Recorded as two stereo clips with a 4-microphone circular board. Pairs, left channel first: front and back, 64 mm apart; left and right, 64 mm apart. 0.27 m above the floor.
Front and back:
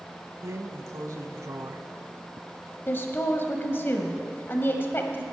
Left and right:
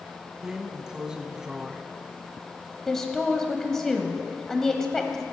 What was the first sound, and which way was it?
A drawer, 170° right.